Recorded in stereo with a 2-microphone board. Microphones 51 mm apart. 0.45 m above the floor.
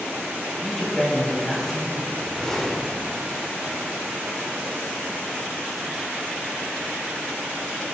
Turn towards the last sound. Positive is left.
turn(degrees=5)  # may be behind; listen again after turning